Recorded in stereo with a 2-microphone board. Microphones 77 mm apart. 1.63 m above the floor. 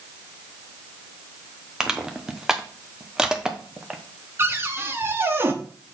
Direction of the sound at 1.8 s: 10° right (ahead or behind).